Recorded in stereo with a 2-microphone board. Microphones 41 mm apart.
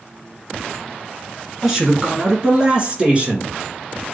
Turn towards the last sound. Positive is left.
turn(degrees=-35)  # may be behind; listen again after turning